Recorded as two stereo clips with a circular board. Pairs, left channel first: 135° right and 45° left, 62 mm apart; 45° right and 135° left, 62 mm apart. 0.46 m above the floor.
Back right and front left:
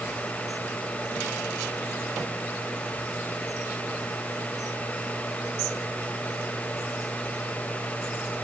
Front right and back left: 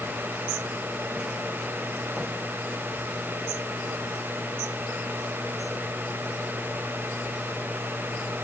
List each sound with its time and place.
Only background noise.